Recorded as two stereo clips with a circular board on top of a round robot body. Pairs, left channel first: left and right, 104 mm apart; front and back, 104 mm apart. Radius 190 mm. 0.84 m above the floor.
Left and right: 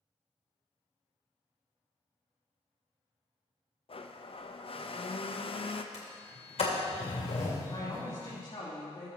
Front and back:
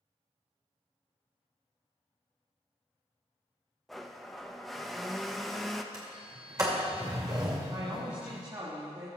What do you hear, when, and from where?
3.9 s a blender: 90° left, 0.9 m
5.9 s a sliding door: 120° left, 2 m
7.7 s a woman speaking: 135° left, 3 m